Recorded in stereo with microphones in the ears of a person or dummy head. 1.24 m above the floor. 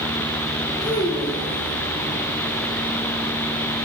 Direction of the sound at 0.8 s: 25° left (ahead or behind).